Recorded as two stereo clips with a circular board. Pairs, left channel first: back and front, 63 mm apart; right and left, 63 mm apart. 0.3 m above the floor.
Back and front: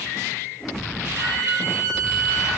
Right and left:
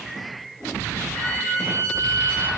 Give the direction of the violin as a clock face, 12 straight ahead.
1 o'clock.